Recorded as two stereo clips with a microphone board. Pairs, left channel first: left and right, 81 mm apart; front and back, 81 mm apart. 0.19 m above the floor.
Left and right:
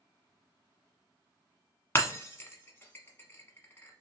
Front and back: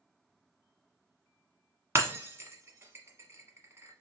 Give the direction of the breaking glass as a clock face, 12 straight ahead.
7 o'clock.